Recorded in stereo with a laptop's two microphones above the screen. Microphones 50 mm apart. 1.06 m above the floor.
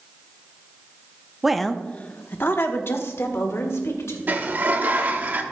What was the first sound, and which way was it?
A woman speaking, 10° right (ahead or behind).